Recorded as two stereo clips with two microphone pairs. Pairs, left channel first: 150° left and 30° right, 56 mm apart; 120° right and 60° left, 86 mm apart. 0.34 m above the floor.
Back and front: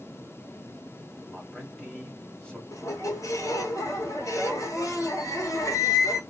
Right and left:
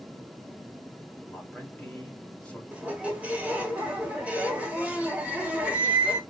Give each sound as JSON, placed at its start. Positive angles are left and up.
{"t": 1.2, "sound": "a man speaking", "azimuth_deg": -170, "distance_m": 1.4}
{"t": 2.7, "sound": "a squeak", "azimuth_deg": 135, "distance_m": 1.1}